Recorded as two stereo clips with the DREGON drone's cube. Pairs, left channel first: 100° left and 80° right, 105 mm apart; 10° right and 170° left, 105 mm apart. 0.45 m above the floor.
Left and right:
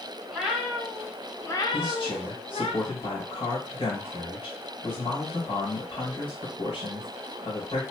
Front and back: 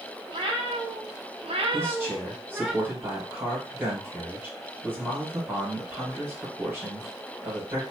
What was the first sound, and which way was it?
A cat meowing, 165° right.